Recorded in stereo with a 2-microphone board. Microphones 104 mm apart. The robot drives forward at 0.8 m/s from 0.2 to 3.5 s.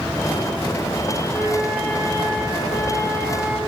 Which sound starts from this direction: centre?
A flute, at 1.3 s.